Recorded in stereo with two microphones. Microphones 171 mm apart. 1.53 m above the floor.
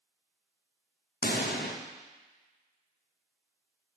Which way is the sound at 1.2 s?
80° left.